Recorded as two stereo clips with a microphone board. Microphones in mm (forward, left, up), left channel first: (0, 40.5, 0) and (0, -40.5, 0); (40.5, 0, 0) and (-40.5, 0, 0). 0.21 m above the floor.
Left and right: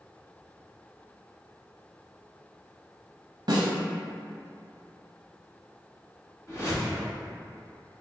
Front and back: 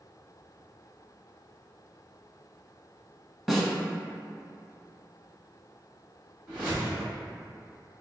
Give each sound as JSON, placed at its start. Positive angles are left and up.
{"t": 3.5, "sound": "a snare drum", "azimuth_deg": -90, "distance_m": 0.6}
{"t": 6.5, "sound": "a whoosh", "azimuth_deg": 115, "distance_m": 1.9}